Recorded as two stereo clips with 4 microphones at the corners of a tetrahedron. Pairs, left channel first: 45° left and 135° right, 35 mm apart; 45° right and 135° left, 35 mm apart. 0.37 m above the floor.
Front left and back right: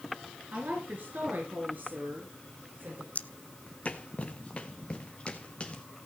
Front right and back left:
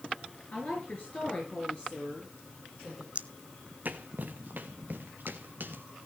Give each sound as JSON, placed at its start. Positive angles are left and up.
{"t": 0.5, "sound": "a woman speaking", "azimuth_deg": -95, "distance_m": 4.5}
{"t": 3.1, "sound": "footsteps", "azimuth_deg": 85, "distance_m": 0.6}